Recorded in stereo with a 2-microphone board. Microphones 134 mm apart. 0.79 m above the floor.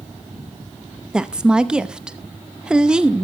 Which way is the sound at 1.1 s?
5° right (ahead or behind).